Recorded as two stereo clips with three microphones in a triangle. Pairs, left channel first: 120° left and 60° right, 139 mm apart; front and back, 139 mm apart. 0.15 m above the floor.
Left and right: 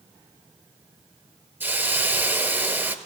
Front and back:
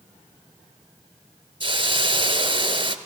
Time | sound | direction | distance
1.6 | a hiss | 135° right | 0.6 m